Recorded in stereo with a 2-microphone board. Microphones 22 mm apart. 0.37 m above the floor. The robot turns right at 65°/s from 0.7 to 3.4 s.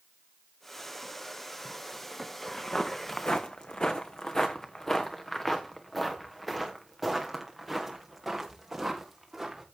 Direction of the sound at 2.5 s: 20° left (ahead or behind).